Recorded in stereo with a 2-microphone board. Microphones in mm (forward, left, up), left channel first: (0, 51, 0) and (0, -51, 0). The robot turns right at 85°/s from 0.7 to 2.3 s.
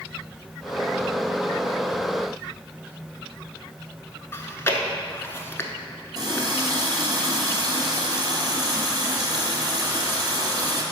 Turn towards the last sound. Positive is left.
turn(degrees=-45)  # may be behind; listen again after turning